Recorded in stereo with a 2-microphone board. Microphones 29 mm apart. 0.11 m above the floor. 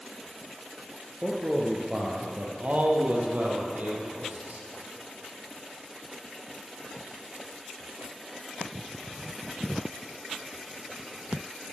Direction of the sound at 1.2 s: 20° right (ahead or behind).